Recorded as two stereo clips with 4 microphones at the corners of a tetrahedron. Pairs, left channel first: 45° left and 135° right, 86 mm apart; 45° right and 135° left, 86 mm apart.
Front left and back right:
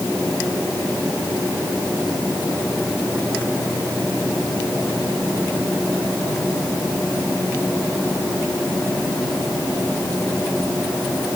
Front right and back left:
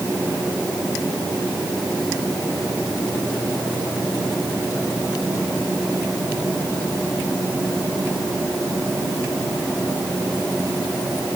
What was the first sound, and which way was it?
Only background noise.